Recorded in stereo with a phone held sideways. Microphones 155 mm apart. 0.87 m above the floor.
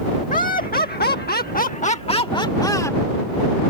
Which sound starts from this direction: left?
Laughter, at 0.3 s.